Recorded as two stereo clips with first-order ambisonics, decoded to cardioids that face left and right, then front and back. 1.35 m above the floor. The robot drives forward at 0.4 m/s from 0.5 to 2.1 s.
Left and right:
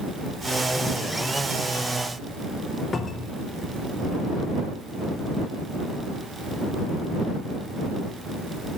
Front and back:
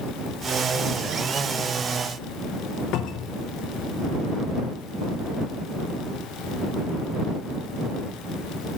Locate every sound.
2.9 s a cupboard door: 20° left, 0.6 m